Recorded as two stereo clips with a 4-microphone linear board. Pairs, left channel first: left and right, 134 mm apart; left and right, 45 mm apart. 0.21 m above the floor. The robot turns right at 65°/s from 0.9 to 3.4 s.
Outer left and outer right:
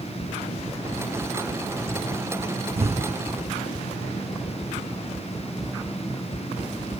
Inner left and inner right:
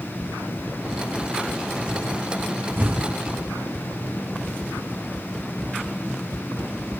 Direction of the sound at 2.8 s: 45° right (ahead or behind).